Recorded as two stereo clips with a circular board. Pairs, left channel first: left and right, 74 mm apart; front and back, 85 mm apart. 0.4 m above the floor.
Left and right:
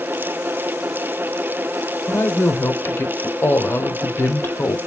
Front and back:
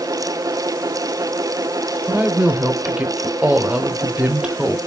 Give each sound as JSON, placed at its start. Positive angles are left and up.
{"t": 2.1, "sound": "a woman speaking", "azimuth_deg": 115, "distance_m": 1.1}